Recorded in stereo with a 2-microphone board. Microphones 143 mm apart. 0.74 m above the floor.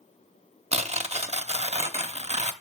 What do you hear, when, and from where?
0.7 s tearing paper: 50° right (ahead or behind), 0.6 m